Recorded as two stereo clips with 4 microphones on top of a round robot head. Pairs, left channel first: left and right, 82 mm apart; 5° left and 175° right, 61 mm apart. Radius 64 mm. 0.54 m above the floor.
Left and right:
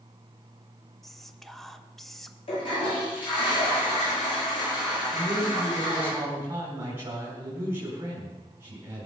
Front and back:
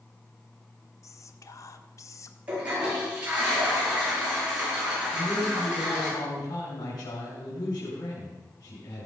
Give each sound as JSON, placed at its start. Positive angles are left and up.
{"t": 1.0, "sound": "whispering", "azimuth_deg": 5, "distance_m": 1.3}
{"t": 2.5, "sound": "a toilet flushing", "azimuth_deg": 115, "distance_m": 8.5}
{"t": 5.1, "sound": "a man speaking", "azimuth_deg": -30, "distance_m": 5.0}